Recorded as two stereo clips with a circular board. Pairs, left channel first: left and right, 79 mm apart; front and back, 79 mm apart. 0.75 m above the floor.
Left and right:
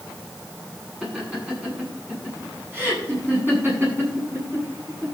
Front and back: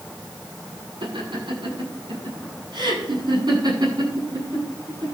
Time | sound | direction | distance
1.0 | laughter | 165° right | 8 m